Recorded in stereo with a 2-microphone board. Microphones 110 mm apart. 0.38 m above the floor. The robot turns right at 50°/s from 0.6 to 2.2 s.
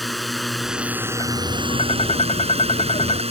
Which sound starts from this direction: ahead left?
Tapping, at 1.2 s.